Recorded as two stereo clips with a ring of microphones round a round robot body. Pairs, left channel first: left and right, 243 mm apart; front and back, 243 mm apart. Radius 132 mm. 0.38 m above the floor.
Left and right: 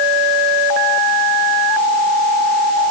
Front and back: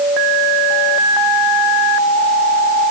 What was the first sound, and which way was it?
Only background noise.